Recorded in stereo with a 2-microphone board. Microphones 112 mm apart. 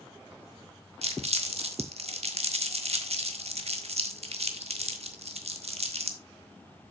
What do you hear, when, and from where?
1.0 s crumpling: 70° right (ahead or behind), 1.3 m